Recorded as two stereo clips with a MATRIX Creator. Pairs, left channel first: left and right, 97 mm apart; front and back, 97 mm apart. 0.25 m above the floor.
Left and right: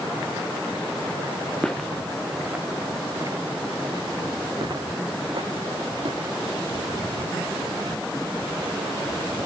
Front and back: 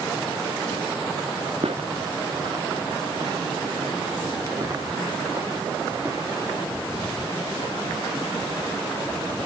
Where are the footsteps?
175° left, 1.4 m; by 6.4 s 115° right, 3.5 m.